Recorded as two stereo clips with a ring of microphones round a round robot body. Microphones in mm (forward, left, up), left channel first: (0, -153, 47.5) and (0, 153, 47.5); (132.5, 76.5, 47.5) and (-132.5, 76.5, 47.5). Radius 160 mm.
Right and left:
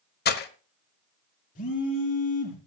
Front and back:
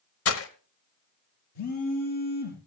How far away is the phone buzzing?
About 4.5 m.